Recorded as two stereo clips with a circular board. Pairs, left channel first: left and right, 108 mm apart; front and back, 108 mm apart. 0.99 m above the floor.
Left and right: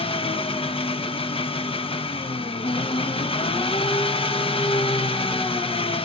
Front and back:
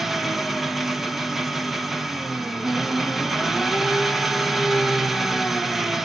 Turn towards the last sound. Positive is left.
turn(degrees=90)